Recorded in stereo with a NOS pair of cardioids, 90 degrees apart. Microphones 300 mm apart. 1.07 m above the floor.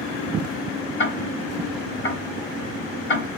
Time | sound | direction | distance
1.0 | ticking | 40° left | 2.5 m